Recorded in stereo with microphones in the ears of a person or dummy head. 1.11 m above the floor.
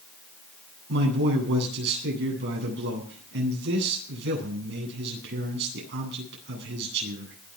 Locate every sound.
0.9 s a man speaking: 55° right (ahead or behind), 10 m